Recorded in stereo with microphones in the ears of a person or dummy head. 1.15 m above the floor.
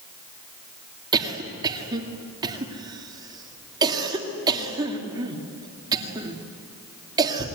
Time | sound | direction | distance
1.1 | a cough | 20° right (ahead or behind) | 2 m